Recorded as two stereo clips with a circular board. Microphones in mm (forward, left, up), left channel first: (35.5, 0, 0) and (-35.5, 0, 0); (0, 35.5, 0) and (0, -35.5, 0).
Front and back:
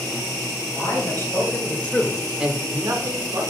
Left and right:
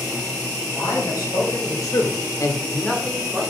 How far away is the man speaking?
About 3 m.